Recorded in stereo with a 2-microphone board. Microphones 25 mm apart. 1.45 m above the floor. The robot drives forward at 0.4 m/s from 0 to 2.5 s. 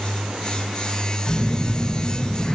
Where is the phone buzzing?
55° left (ahead or behind), 0.7 m; by 2.5 s 35° left (ahead or behind), 1.1 m.